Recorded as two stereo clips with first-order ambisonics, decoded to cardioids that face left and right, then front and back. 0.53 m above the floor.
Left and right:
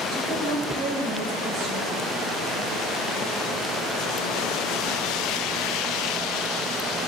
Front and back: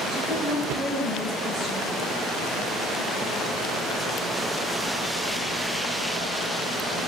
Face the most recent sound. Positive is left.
turn(degrees=-80)